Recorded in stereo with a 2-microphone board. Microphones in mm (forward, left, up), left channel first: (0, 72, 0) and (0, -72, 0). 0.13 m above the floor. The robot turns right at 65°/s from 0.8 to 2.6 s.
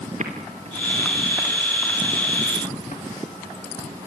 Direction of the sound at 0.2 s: 55° right (ahead or behind).